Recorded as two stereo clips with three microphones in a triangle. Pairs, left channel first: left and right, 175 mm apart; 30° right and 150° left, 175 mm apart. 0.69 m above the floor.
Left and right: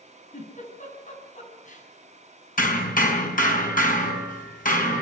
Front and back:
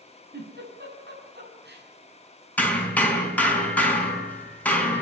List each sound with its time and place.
0.3 s a giggle: 135° left, 7 m
2.6 s hammering: 50° left, 4.5 m